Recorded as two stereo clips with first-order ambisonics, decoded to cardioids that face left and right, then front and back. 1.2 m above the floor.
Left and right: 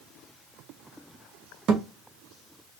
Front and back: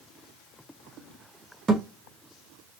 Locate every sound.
1.7 s a thud: 120° right, 0.6 m